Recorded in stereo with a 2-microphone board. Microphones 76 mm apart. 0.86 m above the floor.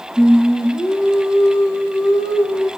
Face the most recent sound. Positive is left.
turn(degrees=-15)  # may be behind; listen again after turning